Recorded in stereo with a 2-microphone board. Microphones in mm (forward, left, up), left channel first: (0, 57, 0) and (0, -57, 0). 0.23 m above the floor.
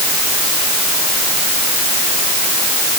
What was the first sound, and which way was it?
Only background noise.